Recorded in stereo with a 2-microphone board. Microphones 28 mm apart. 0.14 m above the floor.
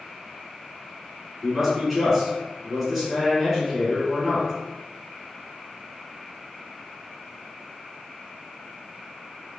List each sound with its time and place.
1.4 s a man speaking: 5° right (ahead or behind), 1.1 m